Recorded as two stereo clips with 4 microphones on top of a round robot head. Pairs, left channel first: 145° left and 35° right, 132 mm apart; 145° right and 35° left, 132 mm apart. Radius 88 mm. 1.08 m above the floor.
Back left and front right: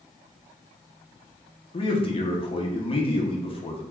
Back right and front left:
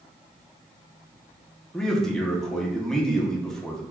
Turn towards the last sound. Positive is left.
turn(degrees=135)